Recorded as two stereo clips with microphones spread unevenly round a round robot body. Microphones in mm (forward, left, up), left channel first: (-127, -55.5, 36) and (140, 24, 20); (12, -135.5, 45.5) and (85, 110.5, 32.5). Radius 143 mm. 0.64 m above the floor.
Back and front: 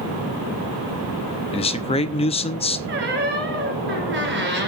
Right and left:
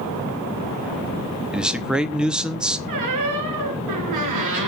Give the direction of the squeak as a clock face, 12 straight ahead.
10 o'clock.